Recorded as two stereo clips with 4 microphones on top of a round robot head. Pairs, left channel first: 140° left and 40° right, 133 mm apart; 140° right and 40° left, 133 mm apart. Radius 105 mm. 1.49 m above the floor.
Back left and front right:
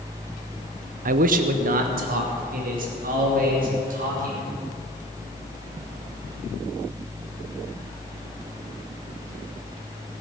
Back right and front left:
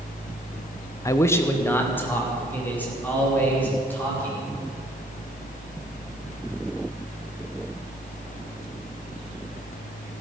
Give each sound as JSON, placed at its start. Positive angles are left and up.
{"t": 1.1, "sound": "a man speaking", "azimuth_deg": -70, "distance_m": 0.6}